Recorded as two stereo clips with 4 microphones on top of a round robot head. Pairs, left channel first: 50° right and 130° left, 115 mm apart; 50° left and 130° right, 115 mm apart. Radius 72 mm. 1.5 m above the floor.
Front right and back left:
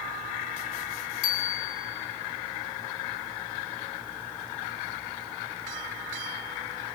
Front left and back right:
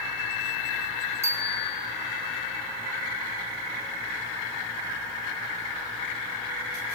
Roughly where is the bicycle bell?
Ahead right.